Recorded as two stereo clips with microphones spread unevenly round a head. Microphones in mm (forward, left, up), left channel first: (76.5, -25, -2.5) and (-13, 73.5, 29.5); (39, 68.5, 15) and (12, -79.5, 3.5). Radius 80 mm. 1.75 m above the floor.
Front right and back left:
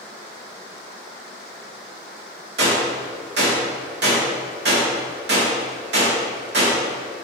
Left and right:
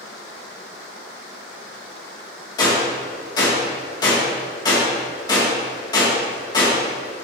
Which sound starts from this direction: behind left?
A gunshot, at 2.6 s.